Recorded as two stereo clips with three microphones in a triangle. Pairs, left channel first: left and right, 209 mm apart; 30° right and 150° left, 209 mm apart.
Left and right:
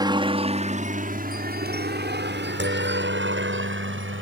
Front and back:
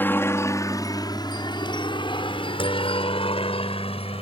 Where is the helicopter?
90° right.